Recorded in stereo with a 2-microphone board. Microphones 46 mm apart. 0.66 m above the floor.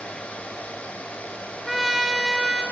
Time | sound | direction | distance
1.7 | a trumpet | centre (ahead or behind) | 1.0 m